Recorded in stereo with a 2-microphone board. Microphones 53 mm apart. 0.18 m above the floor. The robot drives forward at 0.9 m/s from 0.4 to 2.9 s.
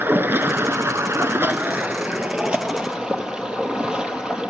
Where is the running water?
45° right (ahead or behind), 0.9 m; by 4.5 s 20° right (ahead or behind), 1.9 m.